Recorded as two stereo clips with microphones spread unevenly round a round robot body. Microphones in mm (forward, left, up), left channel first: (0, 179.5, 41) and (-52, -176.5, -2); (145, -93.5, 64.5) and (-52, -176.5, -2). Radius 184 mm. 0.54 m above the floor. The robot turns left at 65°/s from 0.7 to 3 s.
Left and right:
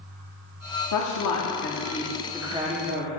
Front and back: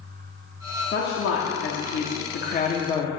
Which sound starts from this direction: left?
A woman speaking, at 0.9 s.